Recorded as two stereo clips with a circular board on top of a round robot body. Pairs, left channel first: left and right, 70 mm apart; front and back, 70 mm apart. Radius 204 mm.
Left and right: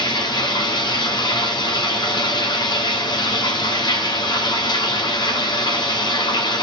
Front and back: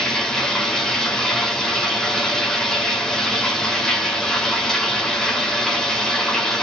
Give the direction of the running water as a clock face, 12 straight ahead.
9 o'clock.